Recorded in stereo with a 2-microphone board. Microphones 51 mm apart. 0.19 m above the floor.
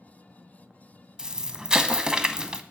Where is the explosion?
15° right (ahead or behind), 0.5 m.